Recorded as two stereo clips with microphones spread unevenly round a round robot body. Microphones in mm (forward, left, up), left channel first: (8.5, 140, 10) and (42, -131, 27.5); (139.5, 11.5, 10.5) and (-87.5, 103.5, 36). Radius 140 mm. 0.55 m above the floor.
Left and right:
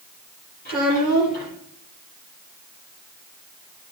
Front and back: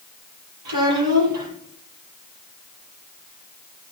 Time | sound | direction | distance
0.7 | a child speaking | 160° left | 9 m